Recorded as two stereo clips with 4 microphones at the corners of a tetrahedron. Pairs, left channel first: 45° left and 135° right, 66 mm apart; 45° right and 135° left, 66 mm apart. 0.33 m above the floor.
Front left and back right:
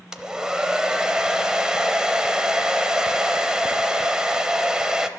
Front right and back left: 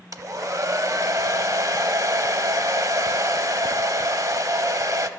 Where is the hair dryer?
150° left, 0.6 m.